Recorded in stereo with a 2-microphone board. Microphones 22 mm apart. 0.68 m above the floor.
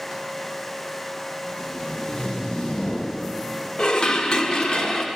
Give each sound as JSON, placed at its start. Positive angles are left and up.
{"t": 1.5, "sound": "tape being pulled", "side_deg": 70, "distance_m": 3.5}
{"t": 3.8, "sound": "dishes clattering", "side_deg": 40, "distance_m": 0.9}